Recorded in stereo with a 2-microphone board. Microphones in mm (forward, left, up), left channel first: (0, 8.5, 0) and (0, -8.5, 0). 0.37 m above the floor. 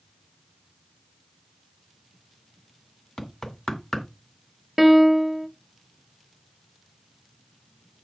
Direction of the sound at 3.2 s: 45° left (ahead or behind).